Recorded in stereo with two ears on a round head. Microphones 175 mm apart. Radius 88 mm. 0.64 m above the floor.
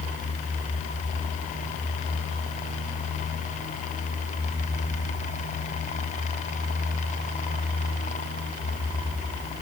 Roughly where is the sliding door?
No sliding door in this recording.